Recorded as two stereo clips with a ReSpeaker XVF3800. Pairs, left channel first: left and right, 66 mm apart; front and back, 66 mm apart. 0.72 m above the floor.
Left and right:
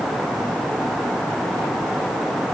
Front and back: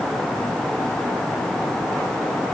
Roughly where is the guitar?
I don't hear a guitar.